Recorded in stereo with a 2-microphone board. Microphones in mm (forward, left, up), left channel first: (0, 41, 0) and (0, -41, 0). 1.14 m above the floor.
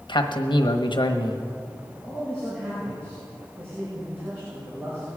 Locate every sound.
0.1 s a man speaking: 70° left (ahead or behind), 1.2 m
1.9 s a man speaking: 35° right (ahead or behind), 6 m